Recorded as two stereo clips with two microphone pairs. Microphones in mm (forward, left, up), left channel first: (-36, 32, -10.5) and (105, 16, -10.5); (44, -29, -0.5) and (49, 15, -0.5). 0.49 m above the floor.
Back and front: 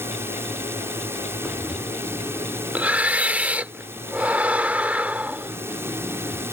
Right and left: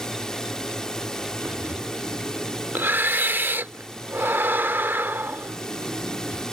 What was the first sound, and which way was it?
A drone, 45° right.